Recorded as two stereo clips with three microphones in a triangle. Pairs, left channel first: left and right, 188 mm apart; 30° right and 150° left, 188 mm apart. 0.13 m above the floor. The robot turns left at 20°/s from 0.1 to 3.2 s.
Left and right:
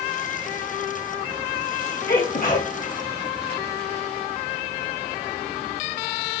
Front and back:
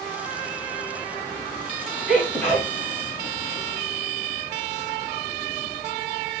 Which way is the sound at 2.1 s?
60° left.